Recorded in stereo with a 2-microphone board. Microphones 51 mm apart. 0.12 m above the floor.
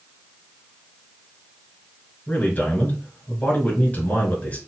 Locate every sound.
2.3 s a man speaking: 35° left (ahead or behind), 2.0 m